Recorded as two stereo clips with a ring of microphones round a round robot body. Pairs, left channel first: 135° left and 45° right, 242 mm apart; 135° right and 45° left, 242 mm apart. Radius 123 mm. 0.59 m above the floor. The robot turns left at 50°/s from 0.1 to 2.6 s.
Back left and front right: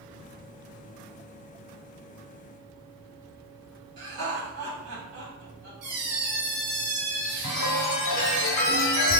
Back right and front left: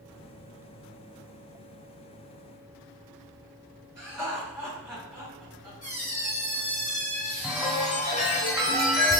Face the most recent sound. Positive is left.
turn(degrees=135)